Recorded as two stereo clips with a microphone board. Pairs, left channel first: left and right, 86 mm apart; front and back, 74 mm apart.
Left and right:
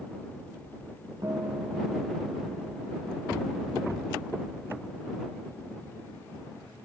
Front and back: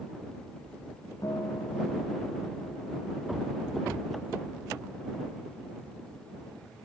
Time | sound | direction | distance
1.2 | a guitar | 40° right | ?